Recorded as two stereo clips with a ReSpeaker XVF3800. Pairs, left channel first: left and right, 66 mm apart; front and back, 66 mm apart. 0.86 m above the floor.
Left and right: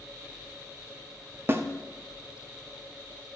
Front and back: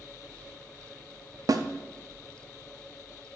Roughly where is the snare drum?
Behind right.